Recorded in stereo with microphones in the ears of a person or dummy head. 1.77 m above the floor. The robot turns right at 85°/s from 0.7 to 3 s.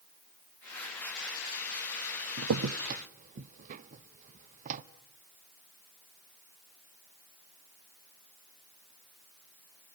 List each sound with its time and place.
2.4 s a crack: 80° right, 0.7 m; by 4.8 s 40° right (ahead or behind), 0.7 m